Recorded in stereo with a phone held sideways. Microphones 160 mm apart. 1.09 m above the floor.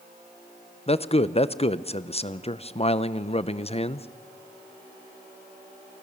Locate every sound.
0.9 s a man speaking: 40° left (ahead or behind), 0.7 m